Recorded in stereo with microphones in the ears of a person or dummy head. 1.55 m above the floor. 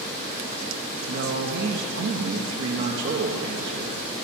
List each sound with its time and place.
1.1 s a man speaking: 65° right (ahead or behind), 1.2 m